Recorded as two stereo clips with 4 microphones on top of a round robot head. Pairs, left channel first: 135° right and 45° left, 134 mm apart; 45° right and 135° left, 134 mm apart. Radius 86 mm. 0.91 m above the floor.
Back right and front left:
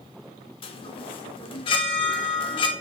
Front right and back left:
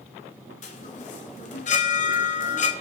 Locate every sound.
0.6 s a chime: 85° right, 1.2 m